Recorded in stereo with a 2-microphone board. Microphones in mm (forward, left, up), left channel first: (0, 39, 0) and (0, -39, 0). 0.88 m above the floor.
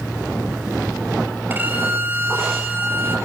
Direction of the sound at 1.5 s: 25° right (ahead or behind).